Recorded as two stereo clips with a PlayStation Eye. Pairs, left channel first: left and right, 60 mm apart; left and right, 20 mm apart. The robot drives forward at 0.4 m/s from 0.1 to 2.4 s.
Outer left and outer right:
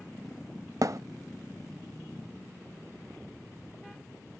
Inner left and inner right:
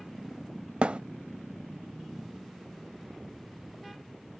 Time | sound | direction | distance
0.8 | a thud | 70° right (ahead or behind) | 0.5 m